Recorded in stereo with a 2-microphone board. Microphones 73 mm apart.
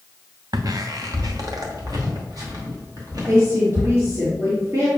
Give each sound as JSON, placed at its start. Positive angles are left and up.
{"t": 0.5, "sound": "footsteps", "side_deg": -55, "distance_m": 0.7}
{"t": 3.3, "sound": "a woman speaking", "side_deg": -40, "distance_m": 2.5}